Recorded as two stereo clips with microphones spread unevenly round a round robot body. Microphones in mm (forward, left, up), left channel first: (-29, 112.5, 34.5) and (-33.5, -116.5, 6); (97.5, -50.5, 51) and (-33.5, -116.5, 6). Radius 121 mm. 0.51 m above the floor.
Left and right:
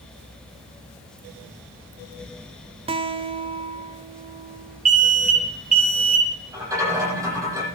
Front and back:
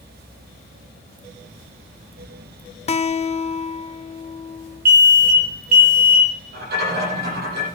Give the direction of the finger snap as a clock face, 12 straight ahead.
I don't hear a finger snap.